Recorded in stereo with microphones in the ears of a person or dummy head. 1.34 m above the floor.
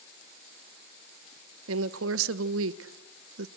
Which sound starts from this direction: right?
A woman speaking, at 1.7 s.